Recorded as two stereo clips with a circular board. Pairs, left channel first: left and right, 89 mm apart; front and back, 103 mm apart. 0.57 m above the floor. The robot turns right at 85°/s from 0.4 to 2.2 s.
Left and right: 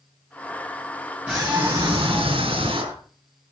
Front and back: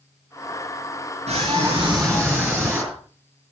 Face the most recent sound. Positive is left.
turn(degrees=-85)